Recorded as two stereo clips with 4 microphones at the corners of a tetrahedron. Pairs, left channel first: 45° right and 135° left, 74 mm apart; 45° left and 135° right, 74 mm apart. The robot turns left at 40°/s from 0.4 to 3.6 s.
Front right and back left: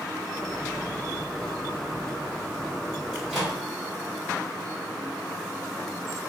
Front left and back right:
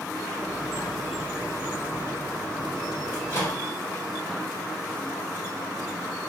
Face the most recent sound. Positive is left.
turn(degrees=35)